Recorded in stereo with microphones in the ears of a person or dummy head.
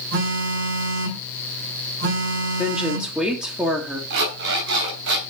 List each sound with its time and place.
0.1 s a phone buzzing: 60° right (ahead or behind), 3 m
2.6 s a woman speaking: 5° right (ahead or behind), 1.8 m
4.1 s an alarm clock: 65° right (ahead or behind), 3.5 m